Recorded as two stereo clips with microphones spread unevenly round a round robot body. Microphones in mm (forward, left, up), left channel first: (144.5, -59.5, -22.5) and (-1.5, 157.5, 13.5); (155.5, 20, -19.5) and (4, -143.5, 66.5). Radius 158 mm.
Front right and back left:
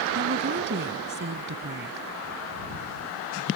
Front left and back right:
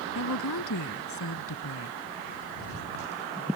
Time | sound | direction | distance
0.1 | a woman speaking | 80° left | ?